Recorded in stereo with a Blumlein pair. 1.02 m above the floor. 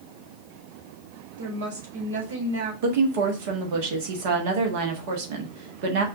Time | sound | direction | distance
1.4 | a woman speaking | 60° right | 2.5 m
2.8 | a woman speaking | 45° right | 1.4 m